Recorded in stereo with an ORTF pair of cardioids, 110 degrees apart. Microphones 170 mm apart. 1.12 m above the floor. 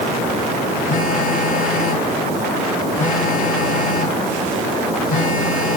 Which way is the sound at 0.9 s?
55° left.